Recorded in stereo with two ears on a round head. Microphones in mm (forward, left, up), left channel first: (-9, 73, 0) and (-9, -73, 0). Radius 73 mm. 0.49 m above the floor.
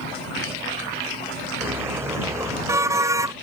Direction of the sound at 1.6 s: 15° right (ahead or behind).